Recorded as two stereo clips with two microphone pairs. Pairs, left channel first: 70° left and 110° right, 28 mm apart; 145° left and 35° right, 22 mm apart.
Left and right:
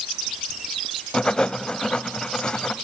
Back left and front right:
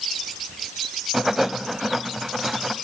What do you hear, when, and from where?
1.1 s writing: 35° left, 0.8 m